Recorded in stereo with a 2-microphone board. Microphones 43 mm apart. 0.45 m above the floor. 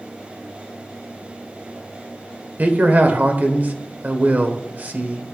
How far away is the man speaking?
About 1.4 m.